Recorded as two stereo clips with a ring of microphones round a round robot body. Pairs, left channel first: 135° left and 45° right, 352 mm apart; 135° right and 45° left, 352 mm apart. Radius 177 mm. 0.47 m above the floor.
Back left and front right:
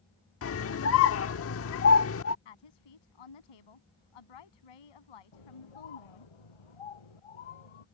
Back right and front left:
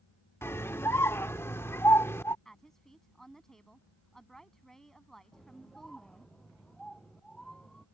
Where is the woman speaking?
135° left.